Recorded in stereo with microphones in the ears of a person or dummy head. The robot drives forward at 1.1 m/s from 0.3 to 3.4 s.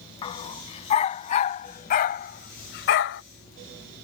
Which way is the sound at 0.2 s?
30° left (ahead or behind).